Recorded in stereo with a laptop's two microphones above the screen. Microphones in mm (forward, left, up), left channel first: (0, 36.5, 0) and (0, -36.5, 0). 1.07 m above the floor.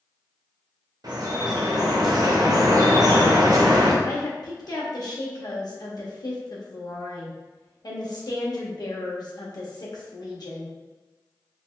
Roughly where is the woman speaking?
Left.